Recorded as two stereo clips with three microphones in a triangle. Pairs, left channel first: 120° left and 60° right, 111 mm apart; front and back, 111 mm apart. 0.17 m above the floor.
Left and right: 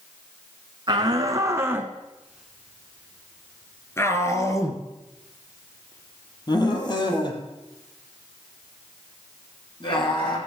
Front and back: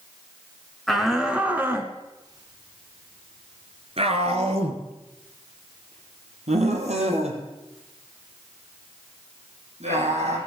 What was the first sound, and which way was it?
A shout, 85° right.